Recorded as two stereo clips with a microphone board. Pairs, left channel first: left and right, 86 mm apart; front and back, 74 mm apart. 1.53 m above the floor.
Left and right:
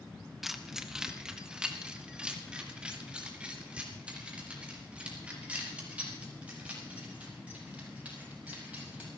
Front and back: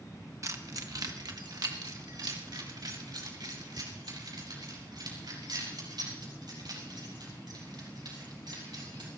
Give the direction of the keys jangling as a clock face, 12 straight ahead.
6 o'clock.